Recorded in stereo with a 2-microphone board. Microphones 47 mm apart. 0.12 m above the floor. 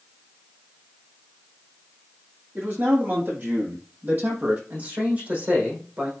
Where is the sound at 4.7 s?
35° right (ahead or behind), 5.5 m.